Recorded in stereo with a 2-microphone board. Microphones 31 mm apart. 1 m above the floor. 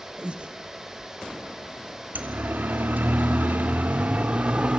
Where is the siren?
70° right (ahead or behind), 2 m; by 4.8 s 40° right (ahead or behind), 3 m.